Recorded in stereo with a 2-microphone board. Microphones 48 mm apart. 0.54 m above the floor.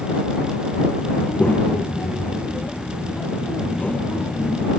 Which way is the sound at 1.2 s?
35° left (ahead or behind).